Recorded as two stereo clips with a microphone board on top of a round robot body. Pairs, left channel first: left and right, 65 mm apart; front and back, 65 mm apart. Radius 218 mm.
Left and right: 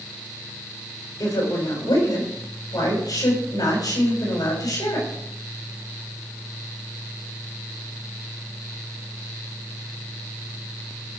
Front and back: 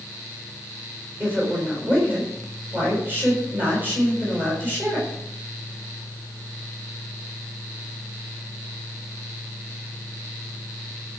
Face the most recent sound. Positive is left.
turn(degrees=120)